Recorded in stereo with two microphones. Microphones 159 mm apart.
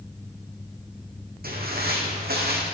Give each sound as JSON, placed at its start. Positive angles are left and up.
{"t": 1.4, "sound": "footsteps", "side_deg": -70, "distance_m": 1.7}